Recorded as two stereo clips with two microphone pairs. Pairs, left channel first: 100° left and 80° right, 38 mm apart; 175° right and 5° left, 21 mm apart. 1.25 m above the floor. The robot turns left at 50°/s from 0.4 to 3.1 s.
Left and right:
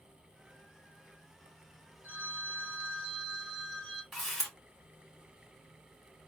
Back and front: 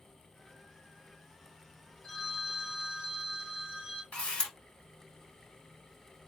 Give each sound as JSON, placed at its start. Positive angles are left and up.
{"t": 2.0, "sound": "a phone ringing", "azimuth_deg": -125, "distance_m": 1.9}
{"t": 4.1, "sound": "a camera shutter", "azimuth_deg": -175, "distance_m": 2.0}